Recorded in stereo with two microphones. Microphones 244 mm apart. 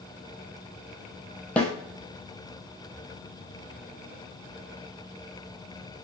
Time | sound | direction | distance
1.6 | a snare drum | 5° left (ahead or behind) | 0.7 m